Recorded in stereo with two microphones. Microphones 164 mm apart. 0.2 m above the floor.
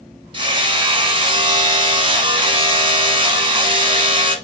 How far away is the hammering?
About 1.6 m.